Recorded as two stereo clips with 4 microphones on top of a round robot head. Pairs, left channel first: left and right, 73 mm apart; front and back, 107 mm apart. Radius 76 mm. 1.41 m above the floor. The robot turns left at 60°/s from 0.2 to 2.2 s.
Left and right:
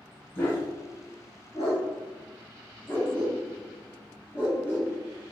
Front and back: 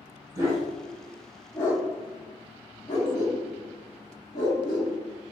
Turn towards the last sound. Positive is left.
turn(degrees=25)